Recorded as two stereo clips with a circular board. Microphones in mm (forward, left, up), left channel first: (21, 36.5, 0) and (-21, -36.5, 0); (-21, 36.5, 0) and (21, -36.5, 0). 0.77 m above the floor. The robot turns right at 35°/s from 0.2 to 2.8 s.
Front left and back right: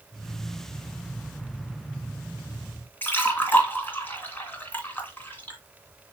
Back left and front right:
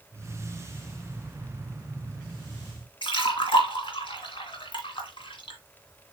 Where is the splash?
125° left, 2.5 m.